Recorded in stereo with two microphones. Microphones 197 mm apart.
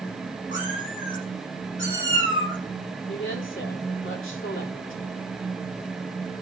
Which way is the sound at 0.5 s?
75° left (ahead or behind).